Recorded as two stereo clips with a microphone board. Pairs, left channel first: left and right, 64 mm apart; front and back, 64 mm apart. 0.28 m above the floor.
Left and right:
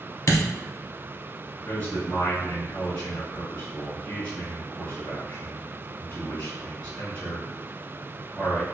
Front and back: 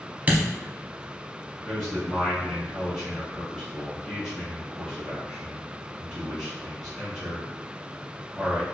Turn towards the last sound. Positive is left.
turn(degrees=85)